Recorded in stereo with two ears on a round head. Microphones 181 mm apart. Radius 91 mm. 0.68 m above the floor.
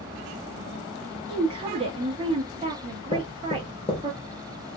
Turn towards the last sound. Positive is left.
turn(degrees=30)  # may be behind; listen again after turning